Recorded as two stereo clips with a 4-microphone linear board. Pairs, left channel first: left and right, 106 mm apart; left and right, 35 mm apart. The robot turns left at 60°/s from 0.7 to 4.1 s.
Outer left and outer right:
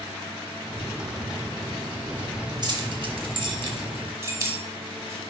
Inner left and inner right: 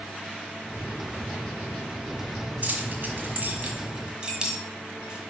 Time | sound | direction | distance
2.6 | keys jangling | 45° right (ahead or behind) | 1.3 m